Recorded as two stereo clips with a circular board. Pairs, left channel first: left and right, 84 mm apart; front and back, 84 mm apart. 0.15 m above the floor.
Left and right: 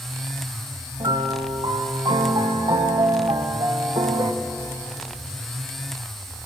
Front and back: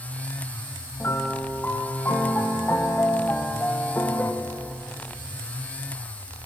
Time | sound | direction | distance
1.0 | a piano | 65° right | 1.5 m